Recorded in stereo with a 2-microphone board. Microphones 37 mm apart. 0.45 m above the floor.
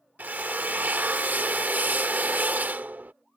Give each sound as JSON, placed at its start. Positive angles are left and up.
{"t": 0.2, "sound": "a drill", "side_deg": -45}